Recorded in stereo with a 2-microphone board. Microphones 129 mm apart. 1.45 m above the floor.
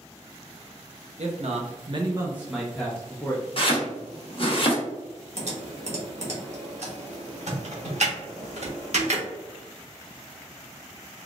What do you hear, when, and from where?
1.2 s a man speaking: 55° right (ahead or behind), 0.8 m; by 3.5 s 15° left (ahead or behind), 1.2 m
3.6 s chopping: 45° left (ahead or behind), 0.9 m
5.4 s typing on a keyboard: 60° right (ahead or behind), 0.9 m